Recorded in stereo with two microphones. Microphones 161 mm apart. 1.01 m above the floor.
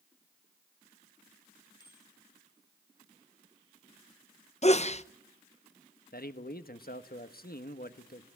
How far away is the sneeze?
About 0.8 m.